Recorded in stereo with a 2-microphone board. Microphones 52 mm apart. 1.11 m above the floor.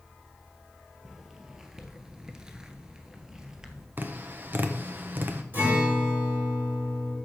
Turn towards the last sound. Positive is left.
turn(degrees=-40)  # may be behind; listen again after turning